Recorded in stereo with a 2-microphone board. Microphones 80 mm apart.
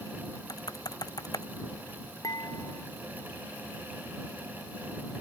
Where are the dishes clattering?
50° left (ahead or behind).